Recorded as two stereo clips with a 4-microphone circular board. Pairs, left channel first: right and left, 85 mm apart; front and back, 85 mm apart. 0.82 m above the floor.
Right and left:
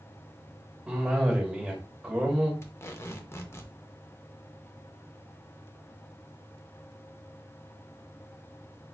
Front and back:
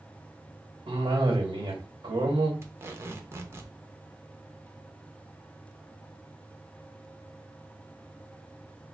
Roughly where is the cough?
Behind.